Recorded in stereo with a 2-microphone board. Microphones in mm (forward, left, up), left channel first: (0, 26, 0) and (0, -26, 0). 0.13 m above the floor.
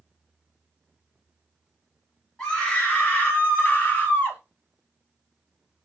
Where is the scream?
15° left (ahead or behind), 1.5 m; by 4.4 s 35° left (ahead or behind), 1.7 m.